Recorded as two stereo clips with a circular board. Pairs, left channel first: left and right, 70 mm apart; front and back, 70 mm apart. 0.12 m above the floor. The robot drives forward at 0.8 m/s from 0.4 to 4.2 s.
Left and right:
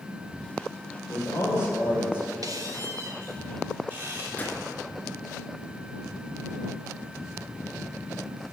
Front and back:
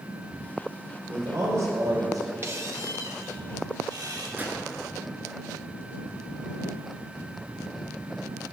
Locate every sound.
1.1 s a man speaking: 135° left, 3 m; by 2.3 s 145° left, 4 m
2.4 s a squeak: 125° right, 1.4 m; by 4.3 s 150° right, 2.5 m
4.4 s a gunshot: 135° left, 1.9 m